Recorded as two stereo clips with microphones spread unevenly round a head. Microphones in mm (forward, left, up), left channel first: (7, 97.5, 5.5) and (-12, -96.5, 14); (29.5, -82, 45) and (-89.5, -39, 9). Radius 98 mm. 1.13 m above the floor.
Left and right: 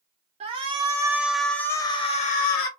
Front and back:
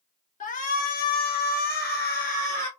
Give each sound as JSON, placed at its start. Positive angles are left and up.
{"t": 0.4, "sound": "a shout", "azimuth_deg": -35, "distance_m": 2.0}